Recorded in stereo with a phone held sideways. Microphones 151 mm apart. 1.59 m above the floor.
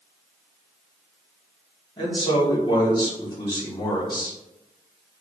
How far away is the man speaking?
About 1.8 m.